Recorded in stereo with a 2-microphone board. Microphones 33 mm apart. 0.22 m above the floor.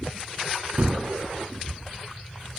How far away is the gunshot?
About 1.6 m.